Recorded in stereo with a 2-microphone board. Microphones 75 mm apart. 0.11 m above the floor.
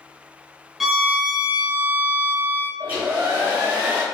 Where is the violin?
5° right (ahead or behind), 0.5 m.